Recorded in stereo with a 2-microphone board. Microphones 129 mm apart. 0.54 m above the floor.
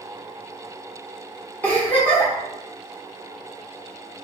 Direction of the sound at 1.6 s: 15° left (ahead or behind).